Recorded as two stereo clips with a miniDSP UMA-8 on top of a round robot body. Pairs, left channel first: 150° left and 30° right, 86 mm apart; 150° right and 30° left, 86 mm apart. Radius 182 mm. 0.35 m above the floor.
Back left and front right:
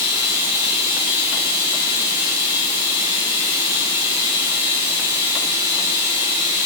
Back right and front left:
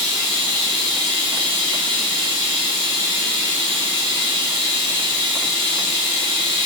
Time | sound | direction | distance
0.0 | running water | 30° left | 5 m